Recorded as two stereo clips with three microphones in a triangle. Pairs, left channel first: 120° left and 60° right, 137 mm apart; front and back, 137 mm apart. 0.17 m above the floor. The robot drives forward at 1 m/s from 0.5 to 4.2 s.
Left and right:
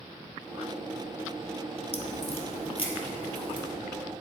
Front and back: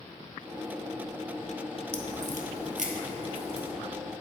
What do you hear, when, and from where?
1.9 s a crack: 155° left, 0.9 m; by 3.7 s 170° left, 2.5 m